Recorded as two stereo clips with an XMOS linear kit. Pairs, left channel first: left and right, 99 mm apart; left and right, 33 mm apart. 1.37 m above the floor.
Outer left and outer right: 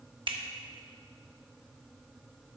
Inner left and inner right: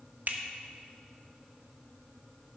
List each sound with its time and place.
0.3 s a finger snap: 55° right (ahead or behind), 1.2 m